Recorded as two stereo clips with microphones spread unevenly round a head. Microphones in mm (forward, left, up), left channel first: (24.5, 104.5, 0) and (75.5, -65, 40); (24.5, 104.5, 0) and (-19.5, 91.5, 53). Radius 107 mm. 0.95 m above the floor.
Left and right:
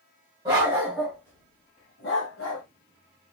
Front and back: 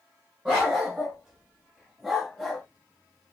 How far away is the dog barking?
About 1.2 m.